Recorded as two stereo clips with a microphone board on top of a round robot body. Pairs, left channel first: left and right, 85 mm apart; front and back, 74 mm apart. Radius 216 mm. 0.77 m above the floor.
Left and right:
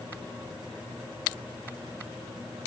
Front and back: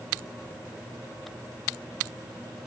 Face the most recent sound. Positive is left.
No sound to turn to.